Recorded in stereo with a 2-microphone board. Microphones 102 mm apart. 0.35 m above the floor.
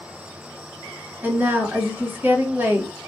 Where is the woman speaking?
20° right (ahead or behind), 1.6 m.